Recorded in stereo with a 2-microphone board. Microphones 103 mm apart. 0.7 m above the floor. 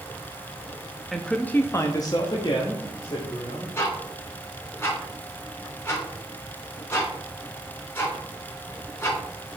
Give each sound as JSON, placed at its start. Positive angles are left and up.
{"t": 1.1, "sound": "a man speaking", "side_deg": 0, "distance_m": 0.6}
{"t": 3.8, "sound": "ticking", "side_deg": 25, "distance_m": 3.5}